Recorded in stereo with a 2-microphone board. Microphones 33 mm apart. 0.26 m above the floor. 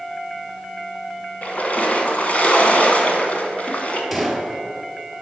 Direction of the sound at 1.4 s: 45° left (ahead or behind).